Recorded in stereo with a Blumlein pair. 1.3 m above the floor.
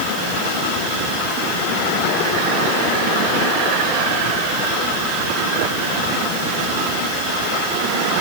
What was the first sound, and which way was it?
Only background noise.